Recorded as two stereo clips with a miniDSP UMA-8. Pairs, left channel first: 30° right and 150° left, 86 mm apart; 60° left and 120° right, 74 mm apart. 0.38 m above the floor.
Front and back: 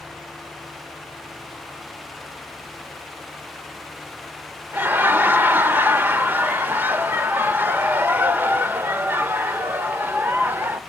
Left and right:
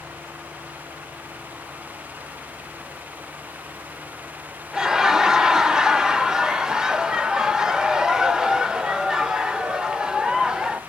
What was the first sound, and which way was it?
Laughter, 170° left.